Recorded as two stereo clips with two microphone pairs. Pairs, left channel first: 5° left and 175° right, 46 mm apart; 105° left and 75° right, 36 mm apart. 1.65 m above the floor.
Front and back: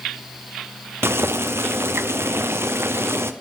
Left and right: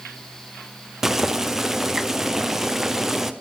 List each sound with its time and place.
1.0 s boiling: 155° right, 0.8 m